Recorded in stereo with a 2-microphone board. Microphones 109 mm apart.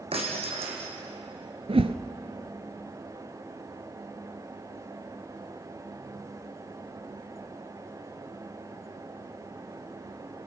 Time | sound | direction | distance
0.1 | breaking glass | 65° right (ahead or behind) | 5 m
1.7 | a whoosh | 65° right (ahead or behind) | 1.0 m